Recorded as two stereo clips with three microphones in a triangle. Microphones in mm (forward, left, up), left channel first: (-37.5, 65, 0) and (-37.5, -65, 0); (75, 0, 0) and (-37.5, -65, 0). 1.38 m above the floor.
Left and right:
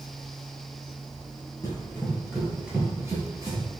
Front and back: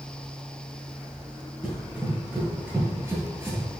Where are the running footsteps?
130° left, 1.5 m; by 3.6 s 95° right, 1.6 m.